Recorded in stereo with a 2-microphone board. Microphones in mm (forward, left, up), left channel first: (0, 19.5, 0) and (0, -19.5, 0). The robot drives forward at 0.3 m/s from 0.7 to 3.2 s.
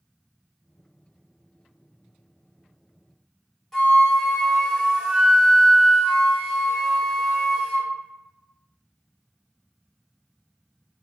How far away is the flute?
About 1.3 m.